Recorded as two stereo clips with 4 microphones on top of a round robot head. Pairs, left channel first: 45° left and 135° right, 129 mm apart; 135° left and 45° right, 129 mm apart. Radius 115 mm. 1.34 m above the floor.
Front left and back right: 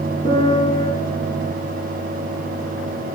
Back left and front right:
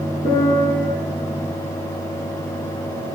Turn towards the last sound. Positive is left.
turn(degrees=110)